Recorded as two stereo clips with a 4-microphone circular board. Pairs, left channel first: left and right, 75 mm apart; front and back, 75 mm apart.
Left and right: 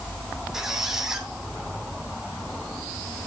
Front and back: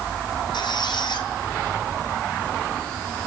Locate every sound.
0.5 s a squeak: 5° right, 2.5 m